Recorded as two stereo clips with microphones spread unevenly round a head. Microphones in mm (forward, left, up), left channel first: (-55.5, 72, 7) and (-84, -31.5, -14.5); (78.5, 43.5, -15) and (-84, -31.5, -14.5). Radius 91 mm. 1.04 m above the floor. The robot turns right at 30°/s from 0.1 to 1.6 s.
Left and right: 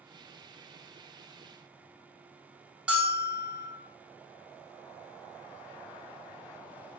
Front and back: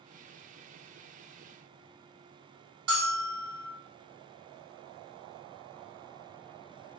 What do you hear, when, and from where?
2.9 s a bell: straight behind, 1.8 m